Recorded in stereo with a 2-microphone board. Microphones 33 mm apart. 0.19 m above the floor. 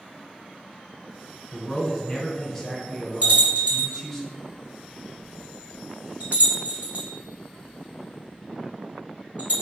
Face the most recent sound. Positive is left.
turn(degrees=-55)  # may be behind; listen again after turning